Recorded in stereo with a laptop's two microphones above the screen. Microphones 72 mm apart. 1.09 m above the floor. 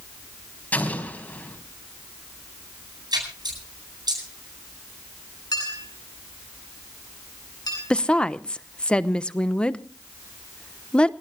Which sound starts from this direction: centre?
A woman speaking, at 7.9 s.